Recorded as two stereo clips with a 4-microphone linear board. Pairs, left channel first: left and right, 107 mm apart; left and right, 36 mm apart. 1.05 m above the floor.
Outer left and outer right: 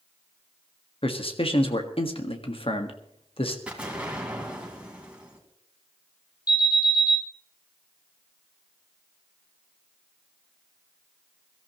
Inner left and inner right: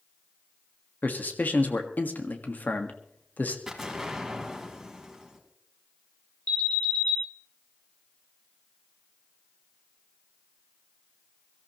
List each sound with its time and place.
1.0 s a man speaking: 60° left (ahead or behind), 1.6 m
3.7 s an explosion: 10° right (ahead or behind), 2.5 m
6.5 s an alarm: 35° left (ahead or behind), 5.5 m